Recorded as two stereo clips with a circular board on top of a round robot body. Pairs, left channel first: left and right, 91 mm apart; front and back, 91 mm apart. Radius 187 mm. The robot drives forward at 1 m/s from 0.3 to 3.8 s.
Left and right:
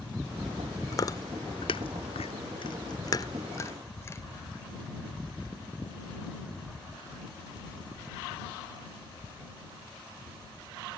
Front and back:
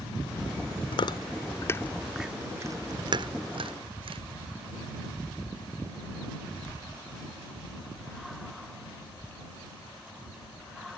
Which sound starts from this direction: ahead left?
Chewing, at 0.9 s.